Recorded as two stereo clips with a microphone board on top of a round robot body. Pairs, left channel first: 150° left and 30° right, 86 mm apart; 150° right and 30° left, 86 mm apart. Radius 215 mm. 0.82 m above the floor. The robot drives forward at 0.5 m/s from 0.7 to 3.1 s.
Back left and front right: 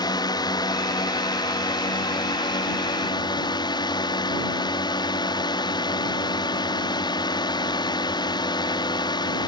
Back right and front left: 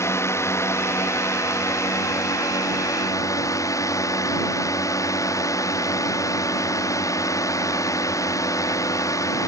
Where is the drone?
160° left; by 9.5 s 165° left.